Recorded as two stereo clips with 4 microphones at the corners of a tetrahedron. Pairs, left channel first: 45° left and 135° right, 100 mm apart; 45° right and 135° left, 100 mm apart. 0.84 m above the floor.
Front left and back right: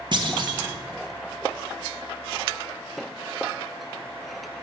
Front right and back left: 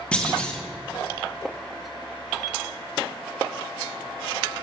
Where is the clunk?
120° right, 1.5 m.